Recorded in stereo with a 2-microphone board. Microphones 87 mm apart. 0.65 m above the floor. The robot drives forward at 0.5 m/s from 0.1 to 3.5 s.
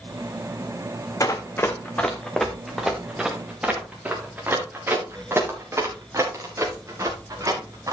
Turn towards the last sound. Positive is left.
turn(degrees=-40)  # may be behind; listen again after turning